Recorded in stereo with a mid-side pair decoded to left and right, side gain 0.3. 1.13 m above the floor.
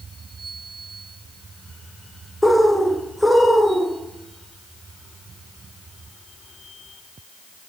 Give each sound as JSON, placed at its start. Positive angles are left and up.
{"t": 2.4, "sound": "a bird", "azimuth_deg": 10, "distance_m": 0.7}